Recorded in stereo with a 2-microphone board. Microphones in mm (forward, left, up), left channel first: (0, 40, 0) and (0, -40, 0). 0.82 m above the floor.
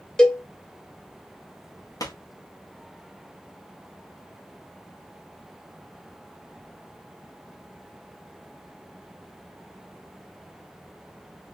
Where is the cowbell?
10° left (ahead or behind), 0.7 m.